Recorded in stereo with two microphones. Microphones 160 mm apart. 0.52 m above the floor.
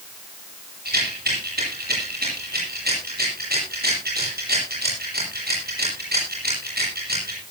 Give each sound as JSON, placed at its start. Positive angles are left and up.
{"t": 0.8, "sound": "a rattle", "side_deg": -80, "distance_m": 9.5}